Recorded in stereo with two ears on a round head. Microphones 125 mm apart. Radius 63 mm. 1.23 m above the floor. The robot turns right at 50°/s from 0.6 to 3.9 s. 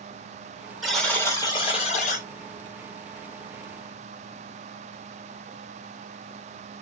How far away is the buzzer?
About 1.4 m.